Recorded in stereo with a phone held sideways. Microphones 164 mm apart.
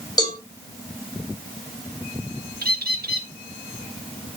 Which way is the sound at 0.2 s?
25° left (ahead or behind).